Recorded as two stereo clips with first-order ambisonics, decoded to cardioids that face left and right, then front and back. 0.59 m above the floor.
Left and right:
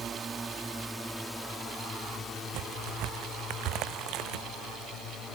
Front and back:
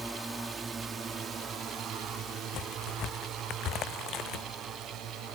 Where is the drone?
105° right; by 5.3 s 135° left.